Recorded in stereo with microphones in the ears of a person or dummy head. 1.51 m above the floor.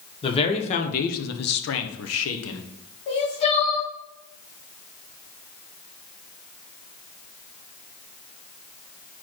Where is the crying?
40° left (ahead or behind), 2 m.